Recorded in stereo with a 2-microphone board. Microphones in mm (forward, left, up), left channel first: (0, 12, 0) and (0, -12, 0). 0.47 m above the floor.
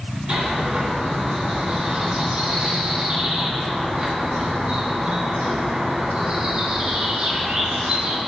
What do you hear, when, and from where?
0.3 s a bird: 45° right (ahead or behind), 3 m